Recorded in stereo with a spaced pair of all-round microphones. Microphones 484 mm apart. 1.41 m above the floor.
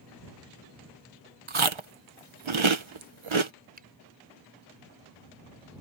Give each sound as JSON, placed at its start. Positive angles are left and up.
{"t": 1.5, "sound": "chewing", "side_deg": -80}
{"t": 3.8, "sound": "a finger snap", "side_deg": -20}